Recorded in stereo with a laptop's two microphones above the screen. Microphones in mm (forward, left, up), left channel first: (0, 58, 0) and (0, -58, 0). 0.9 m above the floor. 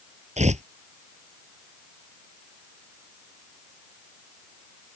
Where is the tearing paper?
85° right.